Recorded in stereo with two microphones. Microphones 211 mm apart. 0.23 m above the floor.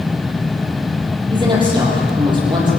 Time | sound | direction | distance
1.3 | a woman speaking | 20° right (ahead or behind) | 7.5 m